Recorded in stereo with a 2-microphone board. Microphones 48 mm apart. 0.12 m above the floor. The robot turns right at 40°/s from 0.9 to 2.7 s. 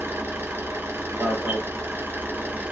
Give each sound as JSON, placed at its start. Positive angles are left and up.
{"t": 0.0, "sound": "an engine running", "azimuth_deg": -110, "distance_m": 0.8}
{"t": 1.2, "sound": "an alarm", "side_deg": -45, "distance_m": 1.4}